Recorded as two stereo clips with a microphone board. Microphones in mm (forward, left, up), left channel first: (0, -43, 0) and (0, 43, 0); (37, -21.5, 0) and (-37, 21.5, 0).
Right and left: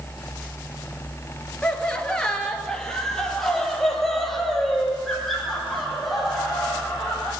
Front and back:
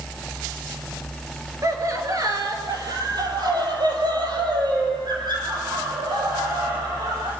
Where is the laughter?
165° right, 3 m; by 7.3 s straight behind, 9 m.